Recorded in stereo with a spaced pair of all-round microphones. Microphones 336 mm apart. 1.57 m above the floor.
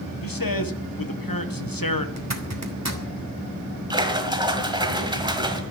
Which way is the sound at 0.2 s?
80° left.